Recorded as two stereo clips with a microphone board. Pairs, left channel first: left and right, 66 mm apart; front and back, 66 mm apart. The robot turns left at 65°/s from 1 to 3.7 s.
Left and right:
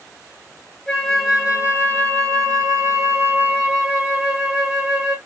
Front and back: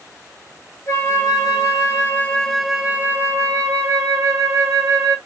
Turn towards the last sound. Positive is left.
turn(degrees=-160)